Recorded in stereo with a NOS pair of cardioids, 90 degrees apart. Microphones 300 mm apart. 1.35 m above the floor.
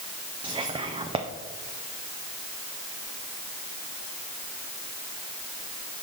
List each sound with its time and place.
0.4 s whispering: 15° right, 0.5 m